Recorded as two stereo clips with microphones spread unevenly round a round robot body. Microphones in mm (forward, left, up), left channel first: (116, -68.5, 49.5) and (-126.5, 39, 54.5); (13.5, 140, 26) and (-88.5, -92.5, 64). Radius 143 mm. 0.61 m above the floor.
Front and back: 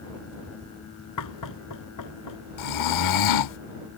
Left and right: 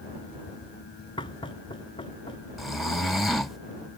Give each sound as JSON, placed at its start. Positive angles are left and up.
{"t": 1.2, "sound": "knocking", "azimuth_deg": -10}
{"t": 2.6, "sound": "snoring", "azimuth_deg": -25}